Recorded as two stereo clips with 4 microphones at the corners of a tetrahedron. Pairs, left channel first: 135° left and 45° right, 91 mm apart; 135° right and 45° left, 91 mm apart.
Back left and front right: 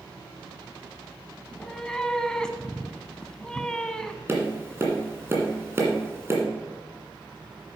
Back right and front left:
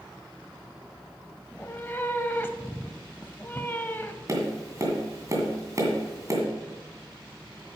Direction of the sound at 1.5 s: 155° right.